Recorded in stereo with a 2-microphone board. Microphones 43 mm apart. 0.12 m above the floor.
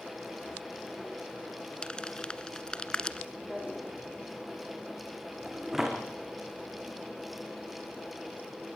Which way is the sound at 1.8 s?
25° left (ahead or behind).